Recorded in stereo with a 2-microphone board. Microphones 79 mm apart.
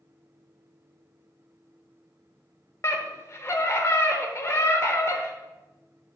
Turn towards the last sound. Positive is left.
turn(degrees=40)  # may be behind; listen again after turning